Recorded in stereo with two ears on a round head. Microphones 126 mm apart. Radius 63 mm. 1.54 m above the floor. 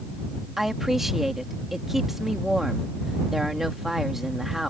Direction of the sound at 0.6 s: 5° right (ahead or behind).